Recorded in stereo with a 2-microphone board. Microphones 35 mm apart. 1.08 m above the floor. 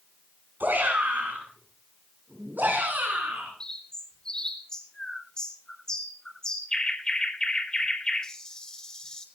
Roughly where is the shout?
Right.